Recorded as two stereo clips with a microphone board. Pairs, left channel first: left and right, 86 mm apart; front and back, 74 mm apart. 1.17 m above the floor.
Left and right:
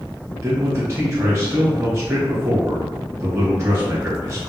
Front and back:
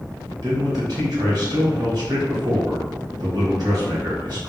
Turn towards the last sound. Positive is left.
turn(degrees=-150)